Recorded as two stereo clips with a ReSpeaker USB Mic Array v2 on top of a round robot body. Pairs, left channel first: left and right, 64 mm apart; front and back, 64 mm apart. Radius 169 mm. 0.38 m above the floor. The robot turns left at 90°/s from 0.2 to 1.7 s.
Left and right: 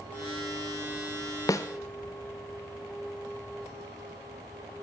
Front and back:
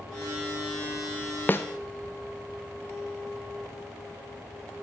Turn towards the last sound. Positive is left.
turn(degrees=40)